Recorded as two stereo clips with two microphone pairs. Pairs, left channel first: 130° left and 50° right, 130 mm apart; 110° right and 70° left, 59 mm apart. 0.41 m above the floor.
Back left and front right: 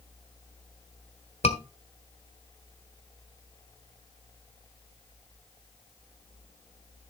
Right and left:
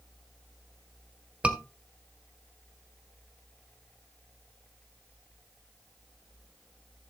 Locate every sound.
1.4 s a scream: 135° left, 1.4 m